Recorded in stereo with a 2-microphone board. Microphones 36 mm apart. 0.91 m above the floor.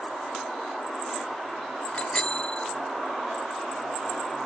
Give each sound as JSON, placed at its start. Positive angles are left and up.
{"t": 1.9, "sound": "a bicycle bell", "side_deg": 30}